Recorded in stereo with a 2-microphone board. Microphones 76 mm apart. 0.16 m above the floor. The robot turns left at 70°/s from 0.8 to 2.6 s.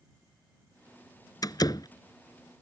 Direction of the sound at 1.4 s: 55° left (ahead or behind).